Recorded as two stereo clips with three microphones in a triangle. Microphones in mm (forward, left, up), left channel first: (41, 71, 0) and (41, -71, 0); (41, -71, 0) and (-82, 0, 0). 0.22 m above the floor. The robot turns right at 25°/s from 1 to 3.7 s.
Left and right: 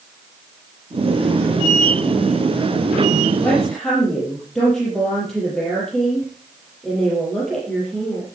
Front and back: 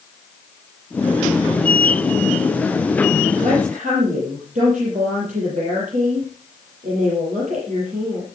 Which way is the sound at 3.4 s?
170° left.